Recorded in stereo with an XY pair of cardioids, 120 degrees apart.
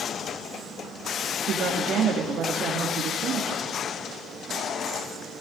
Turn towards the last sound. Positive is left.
turn(degrees=-60)